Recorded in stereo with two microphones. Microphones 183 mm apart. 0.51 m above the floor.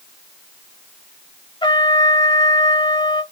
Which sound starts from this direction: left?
A trumpet, at 1.6 s.